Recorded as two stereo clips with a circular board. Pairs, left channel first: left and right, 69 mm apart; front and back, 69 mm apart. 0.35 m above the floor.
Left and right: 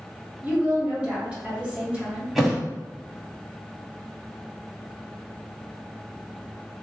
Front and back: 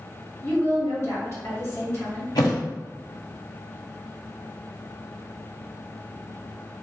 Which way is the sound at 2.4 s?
5° right.